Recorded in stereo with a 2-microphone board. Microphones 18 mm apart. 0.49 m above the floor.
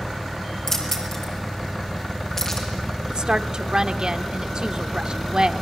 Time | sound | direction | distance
0.7 | keys jangling | 30° left (ahead or behind) | 6.5 m
3.1 | a woman speaking | 40° right (ahead or behind) | 1.0 m